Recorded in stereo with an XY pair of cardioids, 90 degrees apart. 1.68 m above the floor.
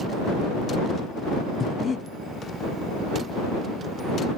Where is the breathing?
45° left.